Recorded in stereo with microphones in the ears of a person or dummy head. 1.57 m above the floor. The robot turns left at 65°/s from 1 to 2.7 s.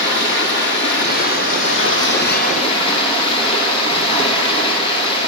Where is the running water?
140° left, 2 m; by 5.3 s 30° left, 2 m.